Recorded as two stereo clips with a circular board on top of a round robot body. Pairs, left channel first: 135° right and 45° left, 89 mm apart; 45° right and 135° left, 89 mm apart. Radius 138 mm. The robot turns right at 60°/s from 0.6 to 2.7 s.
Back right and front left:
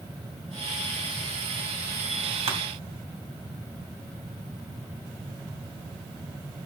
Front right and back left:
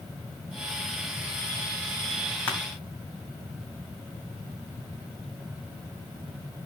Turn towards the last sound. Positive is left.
turn(degrees=40)